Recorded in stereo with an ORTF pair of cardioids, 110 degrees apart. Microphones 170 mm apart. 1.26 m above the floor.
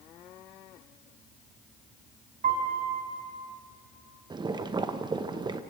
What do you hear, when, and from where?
2.4 s a piano: 50° right, 4 m
4.3 s boiling: 25° right, 1.0 m